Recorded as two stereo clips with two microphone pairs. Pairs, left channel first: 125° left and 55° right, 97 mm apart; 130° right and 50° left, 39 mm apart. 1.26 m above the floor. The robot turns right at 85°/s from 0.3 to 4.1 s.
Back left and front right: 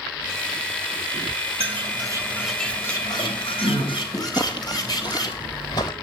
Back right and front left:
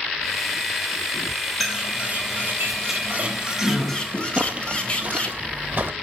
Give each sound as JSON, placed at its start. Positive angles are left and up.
{"t": 1.6, "sound": "a bird", "azimuth_deg": -45, "distance_m": 3.0}
{"t": 4.4, "sound": "footsteps", "azimuth_deg": 100, "distance_m": 2.0}